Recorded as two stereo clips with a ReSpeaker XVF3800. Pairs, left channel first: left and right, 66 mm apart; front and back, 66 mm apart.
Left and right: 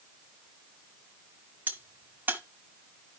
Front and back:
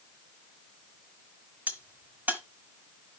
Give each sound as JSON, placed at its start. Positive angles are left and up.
{"t": 1.7, "sound": "a crack", "azimuth_deg": -135, "distance_m": 1.3}